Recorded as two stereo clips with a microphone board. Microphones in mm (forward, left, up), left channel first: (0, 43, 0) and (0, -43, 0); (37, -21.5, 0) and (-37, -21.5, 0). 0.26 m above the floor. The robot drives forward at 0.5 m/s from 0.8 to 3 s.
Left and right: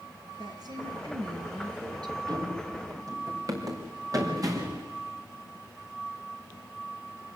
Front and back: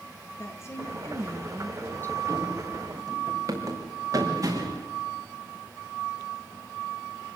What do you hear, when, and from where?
0.4 s a woman speaking: 55° right, 4 m; by 2.2 s 60° right, 3.5 m
2.3 s running footsteps: 130° right, 3.5 m; by 4.8 s 135° right, 7 m